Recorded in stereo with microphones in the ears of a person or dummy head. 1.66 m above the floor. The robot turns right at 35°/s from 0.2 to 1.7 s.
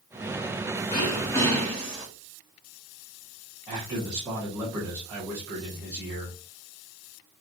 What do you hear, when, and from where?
0.9 s throat clearing: 30° left (ahead or behind), 2 m; by 2.1 s centre (ahead or behind), 2 m
3.7 s a man speaking: 20° right (ahead or behind), 1.6 m